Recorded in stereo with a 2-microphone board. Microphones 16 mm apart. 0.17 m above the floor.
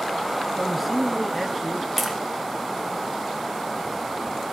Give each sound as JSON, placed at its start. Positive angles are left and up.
{"t": 0.6, "sound": "a man speaking", "side_deg": -5, "distance_m": 2.5}
{"t": 2.0, "sound": "tapping", "side_deg": 0, "distance_m": 2.5}